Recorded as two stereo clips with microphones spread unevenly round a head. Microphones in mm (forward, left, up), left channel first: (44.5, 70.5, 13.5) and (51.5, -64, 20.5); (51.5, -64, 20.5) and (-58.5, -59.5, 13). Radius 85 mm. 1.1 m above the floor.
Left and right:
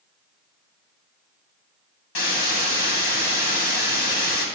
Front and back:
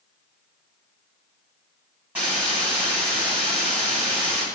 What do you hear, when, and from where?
2.1 s a hiss: 95° left, 2.5 m